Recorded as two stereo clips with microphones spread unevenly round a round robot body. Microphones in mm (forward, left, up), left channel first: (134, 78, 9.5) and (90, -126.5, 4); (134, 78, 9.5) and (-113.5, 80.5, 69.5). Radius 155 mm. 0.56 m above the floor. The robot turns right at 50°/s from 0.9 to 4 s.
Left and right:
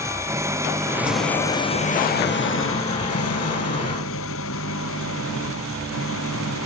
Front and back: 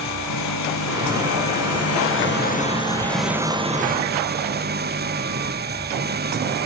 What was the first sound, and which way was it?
An engine running, 25° right.